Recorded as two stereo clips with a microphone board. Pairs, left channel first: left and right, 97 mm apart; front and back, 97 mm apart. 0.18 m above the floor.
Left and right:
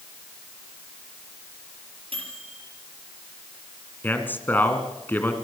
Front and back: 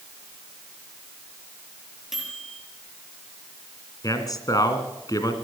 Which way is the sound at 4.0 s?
30° left.